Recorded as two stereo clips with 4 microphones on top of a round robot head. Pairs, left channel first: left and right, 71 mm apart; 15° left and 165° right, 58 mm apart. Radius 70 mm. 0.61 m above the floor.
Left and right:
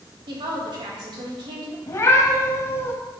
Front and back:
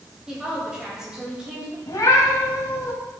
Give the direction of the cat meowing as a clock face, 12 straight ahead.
11 o'clock.